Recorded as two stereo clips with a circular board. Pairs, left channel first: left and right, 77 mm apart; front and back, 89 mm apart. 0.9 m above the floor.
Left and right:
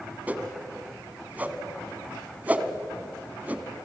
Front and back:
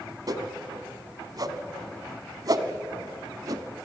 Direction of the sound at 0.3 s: 155° right.